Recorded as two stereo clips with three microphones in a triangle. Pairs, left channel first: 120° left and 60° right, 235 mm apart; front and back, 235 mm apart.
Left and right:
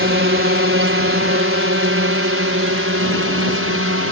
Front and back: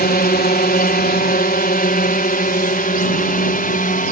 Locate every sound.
0.0 s a drone: 45° right; by 4.1 s 50° right